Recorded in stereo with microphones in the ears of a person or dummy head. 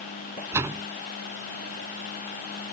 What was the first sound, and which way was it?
A door slam, 15° right (ahead or behind).